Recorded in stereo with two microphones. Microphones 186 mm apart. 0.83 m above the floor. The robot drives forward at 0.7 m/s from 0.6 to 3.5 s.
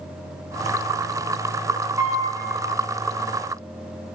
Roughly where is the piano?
Centre.